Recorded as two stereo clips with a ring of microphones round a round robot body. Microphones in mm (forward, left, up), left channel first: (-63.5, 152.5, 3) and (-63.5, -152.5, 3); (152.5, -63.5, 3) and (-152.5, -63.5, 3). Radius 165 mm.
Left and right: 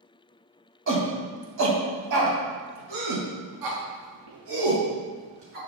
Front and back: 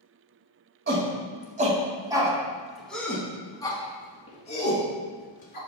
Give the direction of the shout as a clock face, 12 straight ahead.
4 o'clock.